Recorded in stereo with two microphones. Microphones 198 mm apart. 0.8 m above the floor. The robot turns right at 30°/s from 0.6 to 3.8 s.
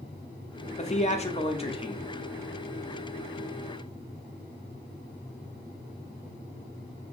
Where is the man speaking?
90° left, 0.8 m; by 2.1 s 130° left, 0.8 m.